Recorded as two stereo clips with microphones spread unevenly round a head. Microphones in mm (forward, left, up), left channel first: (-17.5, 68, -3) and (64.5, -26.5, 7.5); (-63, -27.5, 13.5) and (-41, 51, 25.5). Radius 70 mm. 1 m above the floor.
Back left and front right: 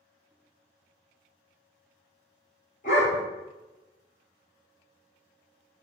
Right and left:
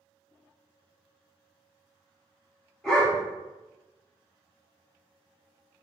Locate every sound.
2.8 s a dog barking: 165° left, 1.0 m